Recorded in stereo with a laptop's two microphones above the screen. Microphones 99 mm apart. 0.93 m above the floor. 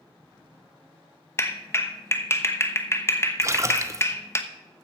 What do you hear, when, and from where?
1.4 s a clap: 30° left (ahead or behind), 1.0 m
3.4 s a splash: 30° right (ahead or behind), 0.6 m